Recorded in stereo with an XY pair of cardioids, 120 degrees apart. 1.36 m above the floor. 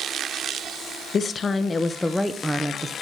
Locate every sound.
1.1 s a woman speaking: 45° left, 1.2 m; by 2.9 s 15° right, 1.0 m